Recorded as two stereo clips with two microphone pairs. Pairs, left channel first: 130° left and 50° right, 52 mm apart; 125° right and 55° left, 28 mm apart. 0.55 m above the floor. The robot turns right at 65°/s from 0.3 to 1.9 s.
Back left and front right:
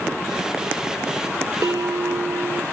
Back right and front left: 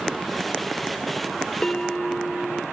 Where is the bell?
70° right; by 2.6 s 50° right.